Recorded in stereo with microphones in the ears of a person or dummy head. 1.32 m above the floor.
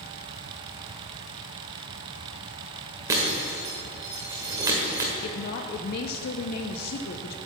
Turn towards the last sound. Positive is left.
turn(degrees=50)  # may be behind; listen again after turning